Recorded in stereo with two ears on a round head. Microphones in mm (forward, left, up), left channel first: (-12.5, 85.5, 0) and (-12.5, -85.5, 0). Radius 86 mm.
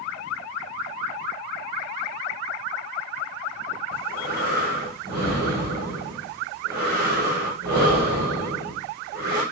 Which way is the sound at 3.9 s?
55° right (ahead or behind).